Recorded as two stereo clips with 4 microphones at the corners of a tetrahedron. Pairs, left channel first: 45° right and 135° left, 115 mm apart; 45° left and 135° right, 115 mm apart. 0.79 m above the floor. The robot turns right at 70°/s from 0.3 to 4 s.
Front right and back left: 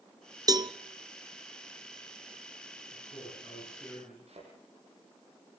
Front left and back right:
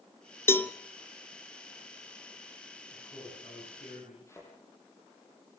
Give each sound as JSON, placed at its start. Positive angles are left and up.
{"t": 0.5, "sound": "a cowbell", "azimuth_deg": 105, "distance_m": 0.8}
{"t": 2.9, "sound": "a man speaking", "azimuth_deg": -35, "distance_m": 8.5}
{"t": 4.3, "sound": "a thud", "azimuth_deg": 110, "distance_m": 9.0}